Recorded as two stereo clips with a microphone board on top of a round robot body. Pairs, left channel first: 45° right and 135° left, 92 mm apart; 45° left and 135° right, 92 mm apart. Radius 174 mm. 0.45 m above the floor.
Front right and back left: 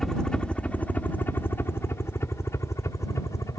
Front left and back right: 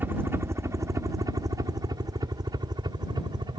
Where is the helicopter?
125° right; by 3.6 s 100° right.